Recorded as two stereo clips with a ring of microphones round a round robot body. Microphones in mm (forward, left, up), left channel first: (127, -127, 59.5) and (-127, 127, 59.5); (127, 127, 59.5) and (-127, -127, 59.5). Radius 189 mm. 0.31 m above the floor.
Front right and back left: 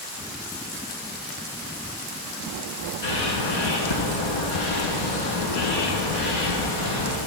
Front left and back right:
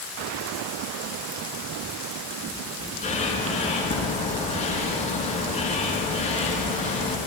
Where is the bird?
25° right, 5.5 m.